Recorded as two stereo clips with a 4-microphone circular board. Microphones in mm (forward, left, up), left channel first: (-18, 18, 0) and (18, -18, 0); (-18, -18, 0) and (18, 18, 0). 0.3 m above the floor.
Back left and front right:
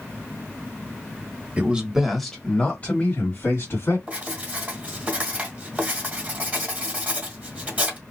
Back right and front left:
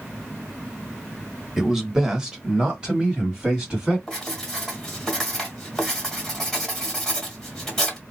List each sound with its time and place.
1.6 s a man speaking: 35° right, 1.0 m; by 4.0 s 115° left, 1.7 m
4.1 s writing: 65° right, 1.5 m